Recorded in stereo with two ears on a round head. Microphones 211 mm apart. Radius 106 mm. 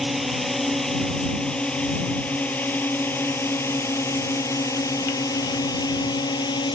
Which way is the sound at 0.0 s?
Centre (ahead or behind).